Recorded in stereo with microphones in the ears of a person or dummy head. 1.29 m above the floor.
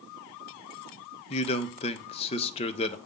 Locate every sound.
1.3 s a man speaking: 35° left (ahead or behind), 0.6 m